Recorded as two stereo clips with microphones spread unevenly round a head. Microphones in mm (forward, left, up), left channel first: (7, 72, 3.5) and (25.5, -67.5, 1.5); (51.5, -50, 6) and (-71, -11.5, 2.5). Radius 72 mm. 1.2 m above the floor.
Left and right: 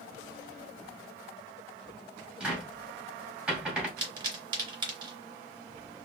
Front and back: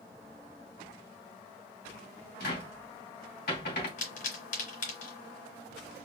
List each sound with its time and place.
2.4 s a cupboard door: straight ahead, 2 m
4.0 s a pop: 25° right, 3 m